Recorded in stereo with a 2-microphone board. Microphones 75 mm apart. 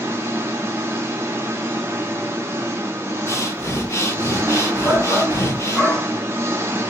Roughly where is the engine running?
Right.